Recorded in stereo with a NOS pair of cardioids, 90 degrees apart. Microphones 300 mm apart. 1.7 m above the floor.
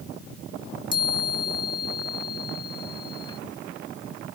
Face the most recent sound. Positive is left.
turn(degrees=15)